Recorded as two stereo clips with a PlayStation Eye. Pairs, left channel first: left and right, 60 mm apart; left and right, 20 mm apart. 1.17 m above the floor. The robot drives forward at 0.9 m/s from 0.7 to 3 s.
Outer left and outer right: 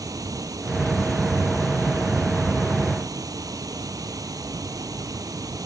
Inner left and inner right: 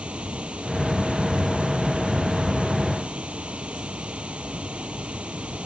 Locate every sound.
0.0 s running water: 80° right